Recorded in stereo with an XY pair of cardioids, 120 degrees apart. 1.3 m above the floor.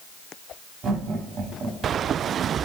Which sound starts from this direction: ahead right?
Laughter, at 0.8 s.